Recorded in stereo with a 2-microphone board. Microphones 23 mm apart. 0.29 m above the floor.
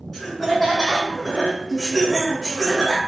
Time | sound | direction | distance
0.1 | laughter | 10° left (ahead or behind) | 1.6 m